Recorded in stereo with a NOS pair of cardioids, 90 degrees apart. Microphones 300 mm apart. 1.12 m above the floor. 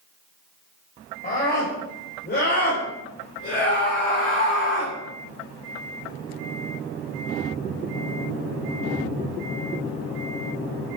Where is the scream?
30° left, 5 m; by 5.0 s 45° left, 2.0 m.